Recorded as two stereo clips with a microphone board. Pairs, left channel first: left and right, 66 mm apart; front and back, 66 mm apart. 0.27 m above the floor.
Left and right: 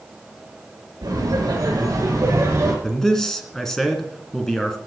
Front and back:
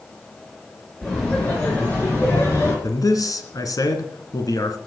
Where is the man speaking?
5° left, 2.5 m.